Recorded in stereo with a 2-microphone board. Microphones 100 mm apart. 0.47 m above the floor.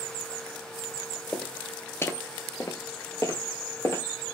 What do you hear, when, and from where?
1.3 s footsteps: 15° left (ahead or behind), 0.7 m; by 4.0 s 25° left (ahead or behind), 1.0 m